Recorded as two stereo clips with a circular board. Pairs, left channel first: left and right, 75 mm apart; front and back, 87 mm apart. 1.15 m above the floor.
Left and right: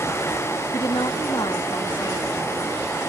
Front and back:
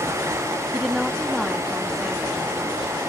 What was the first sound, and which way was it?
A woman speaking, 95° left.